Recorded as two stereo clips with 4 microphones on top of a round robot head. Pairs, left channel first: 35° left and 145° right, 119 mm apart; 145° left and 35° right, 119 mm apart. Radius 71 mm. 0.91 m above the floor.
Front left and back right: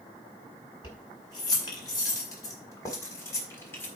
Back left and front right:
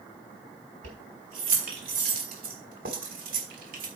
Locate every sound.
0.8 s keys jangling: 20° right, 4 m; by 3.9 s 40° right, 3 m